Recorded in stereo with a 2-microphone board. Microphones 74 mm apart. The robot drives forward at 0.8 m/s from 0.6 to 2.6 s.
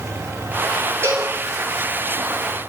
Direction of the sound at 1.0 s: 35° right (ahead or behind).